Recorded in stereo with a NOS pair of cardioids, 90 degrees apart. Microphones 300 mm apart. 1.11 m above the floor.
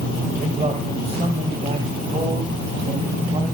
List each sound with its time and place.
0.4 s a man speaking: 20° right, 4.5 m